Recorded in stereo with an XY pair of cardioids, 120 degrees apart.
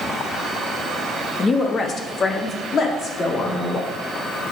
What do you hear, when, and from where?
1.4 s a woman speaking: 30° left, 1.1 m; by 3.9 s 50° left, 3 m